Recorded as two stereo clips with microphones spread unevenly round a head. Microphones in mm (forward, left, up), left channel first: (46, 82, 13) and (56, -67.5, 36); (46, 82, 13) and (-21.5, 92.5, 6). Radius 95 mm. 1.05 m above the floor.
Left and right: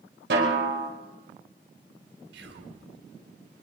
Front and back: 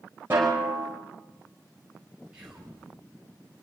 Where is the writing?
No writing in this recording.